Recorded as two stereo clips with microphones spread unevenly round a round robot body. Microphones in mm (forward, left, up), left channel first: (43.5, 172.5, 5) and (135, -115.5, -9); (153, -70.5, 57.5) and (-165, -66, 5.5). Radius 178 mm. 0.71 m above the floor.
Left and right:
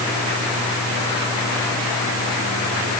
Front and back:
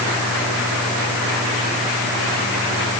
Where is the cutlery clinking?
I don't hear cutlery clinking.